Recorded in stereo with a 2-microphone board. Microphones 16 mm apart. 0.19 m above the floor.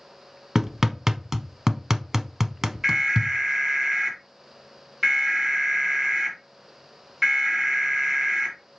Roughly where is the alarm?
Right.